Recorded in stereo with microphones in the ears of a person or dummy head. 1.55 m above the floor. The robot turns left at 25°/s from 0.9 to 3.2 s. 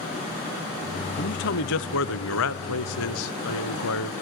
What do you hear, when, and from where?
1.2 s a man speaking: 130° left, 0.6 m; by 4.1 s 80° left, 0.6 m